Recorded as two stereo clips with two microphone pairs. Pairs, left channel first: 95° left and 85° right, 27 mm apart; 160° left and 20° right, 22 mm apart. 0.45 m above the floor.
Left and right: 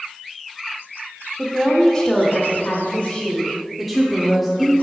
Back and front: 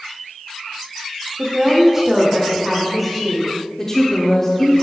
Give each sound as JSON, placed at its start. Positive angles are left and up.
{"t": 1.4, "sound": "a woman speaking", "azimuth_deg": 10, "distance_m": 0.7}
{"t": 3.8, "sound": "a woman speaking", "azimuth_deg": -165, "distance_m": 0.7}